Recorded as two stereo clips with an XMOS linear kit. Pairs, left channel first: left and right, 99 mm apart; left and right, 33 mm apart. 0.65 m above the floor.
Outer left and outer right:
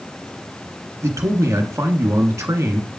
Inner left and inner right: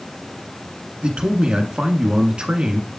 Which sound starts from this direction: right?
A man speaking, at 1.0 s.